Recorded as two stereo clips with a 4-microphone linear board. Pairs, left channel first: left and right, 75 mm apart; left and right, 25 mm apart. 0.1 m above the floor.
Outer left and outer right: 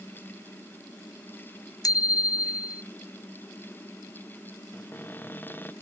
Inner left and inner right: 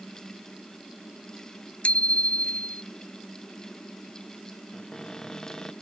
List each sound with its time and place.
1.8 s a bicycle bell: 60° left (ahead or behind)
4.7 s a cupboard door: 30° left (ahead or behind)